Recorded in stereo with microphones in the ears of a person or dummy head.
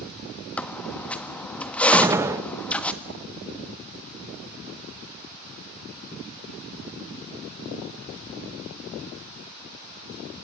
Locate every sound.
0.6 s a squeak: 5° left (ahead or behind), 1.3 m
1.9 s a gunshot: 15° right (ahead or behind), 1.0 m